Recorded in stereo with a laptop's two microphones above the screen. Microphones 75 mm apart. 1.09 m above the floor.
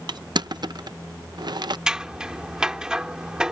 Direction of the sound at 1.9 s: 10° right (ahead or behind).